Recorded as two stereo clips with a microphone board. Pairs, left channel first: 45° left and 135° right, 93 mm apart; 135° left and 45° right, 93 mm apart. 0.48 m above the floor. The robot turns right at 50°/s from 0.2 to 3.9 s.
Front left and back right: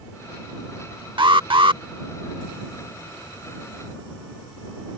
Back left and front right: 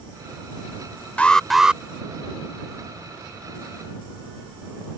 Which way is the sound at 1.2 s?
150° right.